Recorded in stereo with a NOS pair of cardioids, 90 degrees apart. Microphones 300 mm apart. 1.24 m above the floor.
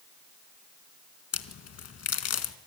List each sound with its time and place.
1.3 s a crack: 55° left, 1.9 m